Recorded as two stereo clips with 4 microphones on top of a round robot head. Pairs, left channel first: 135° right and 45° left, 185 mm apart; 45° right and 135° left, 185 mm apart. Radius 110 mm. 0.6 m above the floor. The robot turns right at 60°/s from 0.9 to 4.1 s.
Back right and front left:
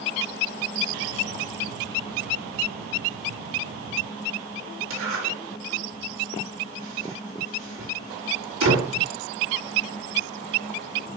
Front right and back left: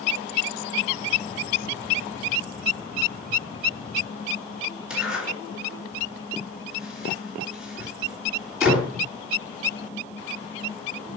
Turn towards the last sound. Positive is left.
turn(degrees=50)